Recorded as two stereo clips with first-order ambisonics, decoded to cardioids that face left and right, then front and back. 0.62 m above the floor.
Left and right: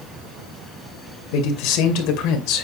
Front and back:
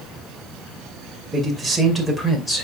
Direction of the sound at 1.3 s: 95° left.